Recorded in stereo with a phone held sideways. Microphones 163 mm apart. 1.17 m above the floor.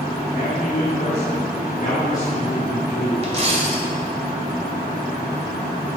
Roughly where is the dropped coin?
Right.